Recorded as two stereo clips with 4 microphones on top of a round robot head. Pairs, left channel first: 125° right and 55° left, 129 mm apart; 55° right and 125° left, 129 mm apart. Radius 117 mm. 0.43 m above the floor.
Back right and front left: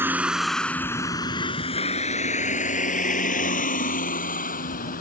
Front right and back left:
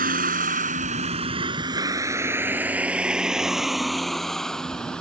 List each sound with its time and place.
0.0 s a vehicle: 125° left; by 5.0 s 135° right